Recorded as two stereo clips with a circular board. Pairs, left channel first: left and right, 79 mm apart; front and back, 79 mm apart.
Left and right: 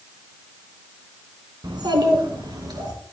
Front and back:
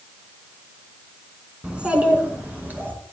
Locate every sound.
1.6 s a child speaking: 105° right, 2.5 m; by 2.9 s 115° right, 4 m